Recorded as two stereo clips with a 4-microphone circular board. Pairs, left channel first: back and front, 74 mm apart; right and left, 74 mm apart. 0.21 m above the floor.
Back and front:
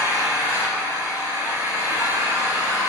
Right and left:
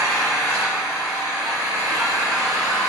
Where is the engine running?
50° left, 2 m.